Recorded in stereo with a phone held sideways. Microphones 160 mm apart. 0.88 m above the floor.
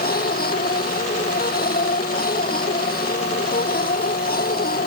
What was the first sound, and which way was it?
A machine running, 65° left (ahead or behind).